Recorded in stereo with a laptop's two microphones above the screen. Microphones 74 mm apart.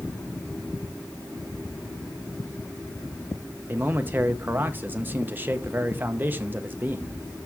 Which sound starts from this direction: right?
A man speaking, at 3.7 s.